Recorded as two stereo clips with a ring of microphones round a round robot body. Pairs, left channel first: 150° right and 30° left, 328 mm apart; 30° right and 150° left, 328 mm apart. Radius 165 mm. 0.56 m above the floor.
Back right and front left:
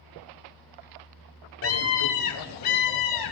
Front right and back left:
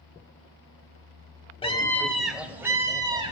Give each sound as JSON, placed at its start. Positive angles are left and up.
{"t": 1.6, "sound": "a scream", "azimuth_deg": -105, "distance_m": 1.8}